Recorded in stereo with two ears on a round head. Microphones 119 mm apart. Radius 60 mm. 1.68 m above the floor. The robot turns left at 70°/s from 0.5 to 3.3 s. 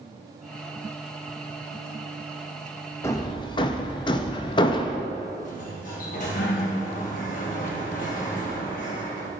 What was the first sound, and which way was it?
Hammering, 20° left (ahead or behind).